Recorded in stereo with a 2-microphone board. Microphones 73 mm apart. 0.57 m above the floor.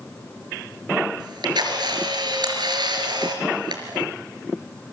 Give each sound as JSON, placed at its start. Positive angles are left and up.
{"t": 1.2, "sound": "a camera shutter", "side_deg": -80, "distance_m": 3.5}